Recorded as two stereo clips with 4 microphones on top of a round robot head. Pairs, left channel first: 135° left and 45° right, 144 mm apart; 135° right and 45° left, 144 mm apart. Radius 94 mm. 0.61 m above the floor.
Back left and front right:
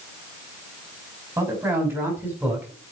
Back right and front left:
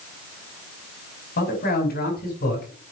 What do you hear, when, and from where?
1.4 s a man speaking: 120° right, 6 m; by 2.9 s 125° right, 5.5 m